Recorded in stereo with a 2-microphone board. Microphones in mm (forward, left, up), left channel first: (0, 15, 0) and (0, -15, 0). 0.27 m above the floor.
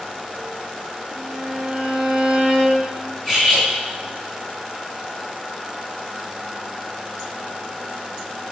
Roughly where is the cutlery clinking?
Centre.